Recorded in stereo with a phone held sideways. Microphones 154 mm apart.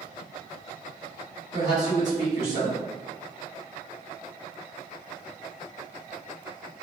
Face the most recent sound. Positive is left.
turn(degrees=-50)  # may be behind; listen again after turning